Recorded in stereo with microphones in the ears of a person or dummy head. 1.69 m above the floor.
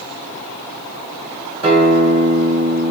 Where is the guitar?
35° right (ahead or behind), 0.9 m.